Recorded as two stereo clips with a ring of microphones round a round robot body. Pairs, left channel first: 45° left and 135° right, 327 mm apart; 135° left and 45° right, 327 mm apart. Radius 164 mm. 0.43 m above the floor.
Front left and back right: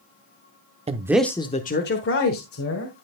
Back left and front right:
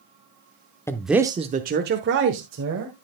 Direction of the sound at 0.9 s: 160° right.